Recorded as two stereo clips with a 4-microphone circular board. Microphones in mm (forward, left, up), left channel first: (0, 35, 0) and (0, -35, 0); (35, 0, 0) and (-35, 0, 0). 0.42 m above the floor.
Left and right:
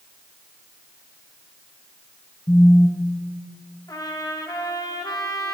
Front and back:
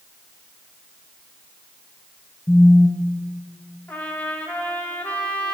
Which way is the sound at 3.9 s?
65° left.